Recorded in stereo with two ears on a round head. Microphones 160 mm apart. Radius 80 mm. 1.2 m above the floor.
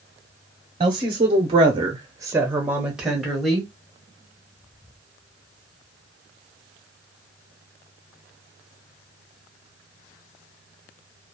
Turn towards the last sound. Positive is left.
turn(degrees=0)  # may be behind; listen again after turning